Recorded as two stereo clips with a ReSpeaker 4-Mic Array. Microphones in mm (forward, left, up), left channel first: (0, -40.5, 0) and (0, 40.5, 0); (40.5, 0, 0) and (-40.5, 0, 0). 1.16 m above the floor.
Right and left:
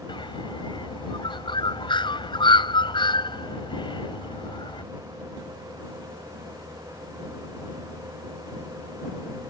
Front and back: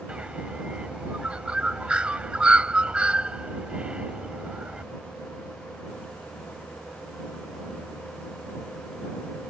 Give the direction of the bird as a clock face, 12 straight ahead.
3 o'clock.